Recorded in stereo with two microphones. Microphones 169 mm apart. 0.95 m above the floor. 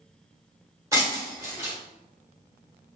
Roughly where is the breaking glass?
Centre.